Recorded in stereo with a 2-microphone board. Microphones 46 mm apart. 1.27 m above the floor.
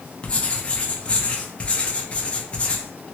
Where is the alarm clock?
I don't hear an alarm clock.